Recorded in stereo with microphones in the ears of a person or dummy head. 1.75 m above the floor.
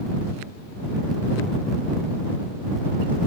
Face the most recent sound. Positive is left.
No sound to turn to.